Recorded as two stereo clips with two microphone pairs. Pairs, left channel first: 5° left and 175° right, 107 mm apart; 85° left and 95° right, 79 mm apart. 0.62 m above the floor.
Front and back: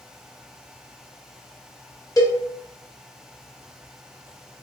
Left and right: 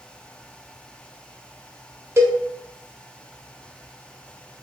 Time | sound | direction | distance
2.2 | a cowbell | 40° right | 0.6 m